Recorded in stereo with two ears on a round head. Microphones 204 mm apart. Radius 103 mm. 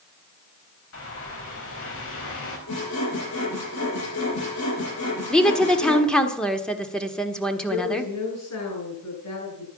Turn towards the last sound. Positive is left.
turn(degrees=75)  # may be behind; listen again after turning